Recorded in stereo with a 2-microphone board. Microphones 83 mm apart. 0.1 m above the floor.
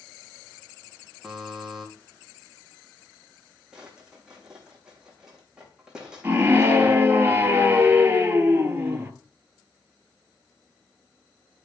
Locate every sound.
1.2 s a buzzer: 5° right (ahead or behind), 3 m
3.7 s a drawer: 10° right (ahead or behind), 4 m
6.2 s a scream: 25° right (ahead or behind), 2 m